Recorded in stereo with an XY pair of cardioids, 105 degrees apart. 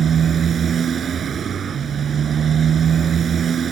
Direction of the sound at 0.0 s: 45° right.